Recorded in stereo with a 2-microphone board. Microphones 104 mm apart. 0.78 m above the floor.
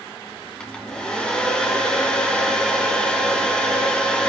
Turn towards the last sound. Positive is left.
turn(degrees=10)  # may be behind; listen again after turning